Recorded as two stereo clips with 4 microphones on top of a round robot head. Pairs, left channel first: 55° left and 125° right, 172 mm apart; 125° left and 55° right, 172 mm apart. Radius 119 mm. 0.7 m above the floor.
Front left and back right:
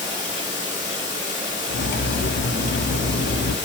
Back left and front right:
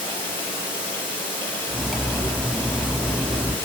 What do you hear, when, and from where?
0.0 s running water: 60° left, 6.5 m
1.7 s cutlery clinking: 35° left, 0.7 m